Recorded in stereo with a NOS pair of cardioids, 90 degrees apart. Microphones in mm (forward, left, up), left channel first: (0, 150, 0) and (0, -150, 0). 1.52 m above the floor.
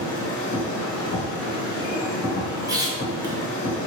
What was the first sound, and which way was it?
A machine running, 50° left.